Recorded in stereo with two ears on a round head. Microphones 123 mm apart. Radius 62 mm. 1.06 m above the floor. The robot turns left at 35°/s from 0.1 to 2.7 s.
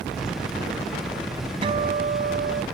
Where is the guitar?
40° right; by 2.6 s 75° right.